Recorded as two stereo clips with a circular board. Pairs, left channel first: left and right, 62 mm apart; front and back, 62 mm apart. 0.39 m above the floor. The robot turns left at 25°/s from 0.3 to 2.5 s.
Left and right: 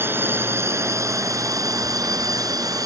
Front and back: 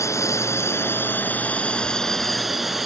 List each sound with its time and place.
0.0 s a drone: 40° right; by 2.9 s 95° right